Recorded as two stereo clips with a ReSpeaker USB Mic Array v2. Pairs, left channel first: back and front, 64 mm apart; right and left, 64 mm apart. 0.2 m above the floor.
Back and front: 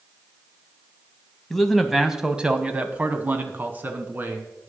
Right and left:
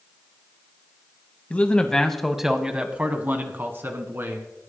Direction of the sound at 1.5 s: 100° right.